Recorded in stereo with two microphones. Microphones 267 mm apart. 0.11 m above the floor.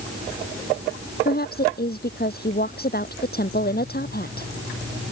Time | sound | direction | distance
1.2 | a woman speaking | 35° left (ahead or behind) | ?